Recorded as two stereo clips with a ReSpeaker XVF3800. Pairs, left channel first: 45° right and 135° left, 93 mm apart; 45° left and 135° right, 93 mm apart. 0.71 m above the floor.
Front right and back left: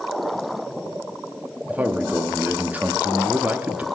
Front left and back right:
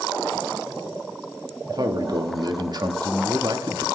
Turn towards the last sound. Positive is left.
turn(degrees=-155)